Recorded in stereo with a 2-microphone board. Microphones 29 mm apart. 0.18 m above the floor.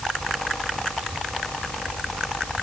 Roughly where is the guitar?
No guitar in this recording.